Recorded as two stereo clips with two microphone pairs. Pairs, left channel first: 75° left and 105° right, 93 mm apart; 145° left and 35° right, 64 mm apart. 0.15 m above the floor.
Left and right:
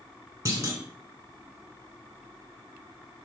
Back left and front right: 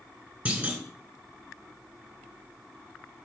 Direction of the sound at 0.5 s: 85° right.